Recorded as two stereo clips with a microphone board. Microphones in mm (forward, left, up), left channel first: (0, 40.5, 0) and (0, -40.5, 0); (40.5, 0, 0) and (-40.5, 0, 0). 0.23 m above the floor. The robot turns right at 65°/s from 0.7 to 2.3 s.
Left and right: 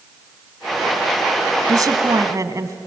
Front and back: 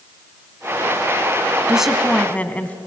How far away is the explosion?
I don't hear an explosion.